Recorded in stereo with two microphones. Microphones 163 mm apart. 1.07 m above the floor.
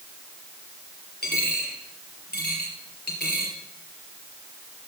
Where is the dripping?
No dripping in this recording.